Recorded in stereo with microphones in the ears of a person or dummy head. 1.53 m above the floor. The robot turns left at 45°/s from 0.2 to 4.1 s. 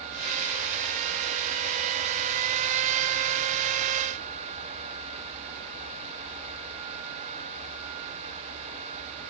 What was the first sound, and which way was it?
Only background noise.